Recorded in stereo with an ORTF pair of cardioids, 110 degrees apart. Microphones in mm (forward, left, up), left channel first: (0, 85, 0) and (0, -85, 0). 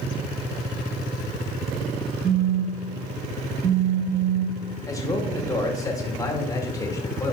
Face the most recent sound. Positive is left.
turn(degrees=20)